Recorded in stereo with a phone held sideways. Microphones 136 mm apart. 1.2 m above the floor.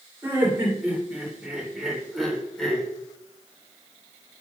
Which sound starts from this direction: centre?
Laughter, at 0.2 s.